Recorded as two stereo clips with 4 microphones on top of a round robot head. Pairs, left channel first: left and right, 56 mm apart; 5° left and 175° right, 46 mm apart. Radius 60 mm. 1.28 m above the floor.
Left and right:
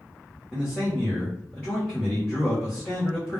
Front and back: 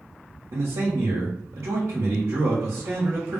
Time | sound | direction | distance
0.5 | a man speaking | 170° left | 0.9 m